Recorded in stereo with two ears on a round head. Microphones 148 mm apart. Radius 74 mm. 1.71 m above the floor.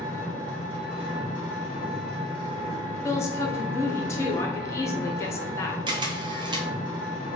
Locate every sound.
0.0 s an engine running: 35° right (ahead or behind), 1.6 m
3.0 s a woman speaking: 20° left (ahead or behind), 0.9 m
5.9 s a camera shutter: 30° right (ahead or behind), 0.7 m